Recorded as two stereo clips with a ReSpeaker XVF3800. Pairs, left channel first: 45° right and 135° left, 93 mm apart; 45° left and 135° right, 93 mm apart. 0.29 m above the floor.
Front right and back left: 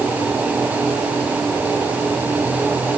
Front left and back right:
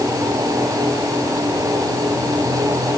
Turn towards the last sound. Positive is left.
No sound to turn to.